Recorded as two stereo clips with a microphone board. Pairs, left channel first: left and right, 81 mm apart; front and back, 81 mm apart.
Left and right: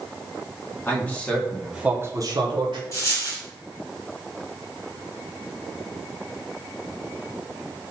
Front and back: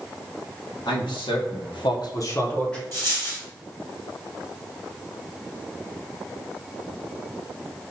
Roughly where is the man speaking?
Ahead left.